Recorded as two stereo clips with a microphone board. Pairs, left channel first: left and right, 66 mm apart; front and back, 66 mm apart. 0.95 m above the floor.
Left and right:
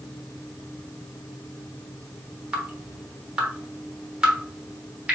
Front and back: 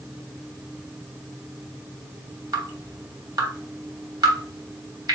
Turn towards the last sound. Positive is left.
turn(degrees=-165)